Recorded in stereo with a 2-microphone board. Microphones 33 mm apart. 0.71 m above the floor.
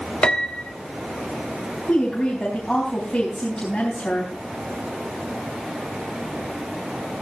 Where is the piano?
25° left (ahead or behind), 1.1 m.